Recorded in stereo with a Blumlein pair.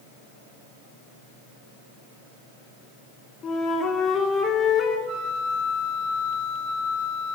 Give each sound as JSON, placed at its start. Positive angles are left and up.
{"t": 3.4, "sound": "a flute", "azimuth_deg": 25, "distance_m": 3.5}
{"t": 5.1, "sound": "a flute", "azimuth_deg": -25, "distance_m": 8.0}